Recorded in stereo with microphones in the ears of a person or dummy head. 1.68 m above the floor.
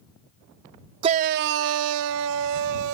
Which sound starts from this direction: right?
A shout, at 1.0 s.